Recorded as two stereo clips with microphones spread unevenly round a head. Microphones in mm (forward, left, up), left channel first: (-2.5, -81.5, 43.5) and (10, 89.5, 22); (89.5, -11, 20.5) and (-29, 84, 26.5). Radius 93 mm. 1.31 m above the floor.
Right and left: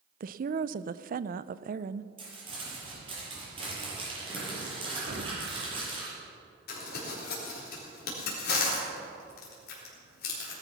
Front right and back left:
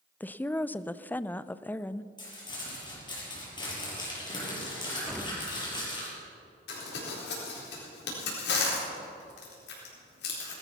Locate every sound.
0.2 s a woman speaking: 40° left, 0.5 m
2.2 s crumpling: 25° left, 7 m
5.1 s an explosion: 50° left, 1.5 m
6.7 s crumpling: 60° right, 4 m